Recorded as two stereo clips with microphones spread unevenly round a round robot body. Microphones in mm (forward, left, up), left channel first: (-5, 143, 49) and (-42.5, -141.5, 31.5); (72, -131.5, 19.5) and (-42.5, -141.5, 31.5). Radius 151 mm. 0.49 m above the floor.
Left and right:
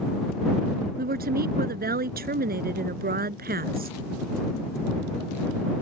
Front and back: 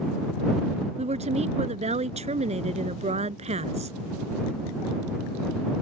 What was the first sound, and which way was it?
A woman speaking, 155° right.